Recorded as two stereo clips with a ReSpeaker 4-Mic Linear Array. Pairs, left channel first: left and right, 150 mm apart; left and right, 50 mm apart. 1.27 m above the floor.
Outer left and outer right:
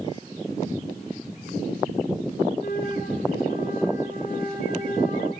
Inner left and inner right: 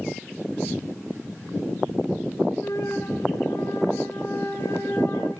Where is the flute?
75° left (ahead or behind), 4 m.